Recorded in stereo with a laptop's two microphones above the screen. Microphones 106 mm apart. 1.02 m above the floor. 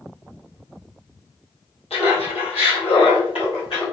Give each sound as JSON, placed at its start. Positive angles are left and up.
{"t": 1.9, "sound": "laughter", "side_deg": 80, "distance_m": 1.4}